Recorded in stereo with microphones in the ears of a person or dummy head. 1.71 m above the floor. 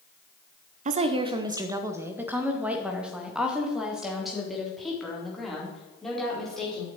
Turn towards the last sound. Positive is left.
turn(degrees=5)  # may be behind; listen again after turning